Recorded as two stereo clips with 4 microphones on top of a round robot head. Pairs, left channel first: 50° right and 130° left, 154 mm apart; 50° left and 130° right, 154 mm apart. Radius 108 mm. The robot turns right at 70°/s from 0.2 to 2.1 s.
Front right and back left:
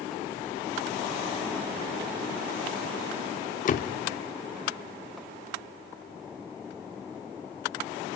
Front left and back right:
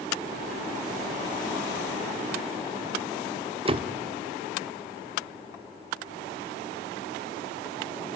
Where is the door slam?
80° right, 0.8 m.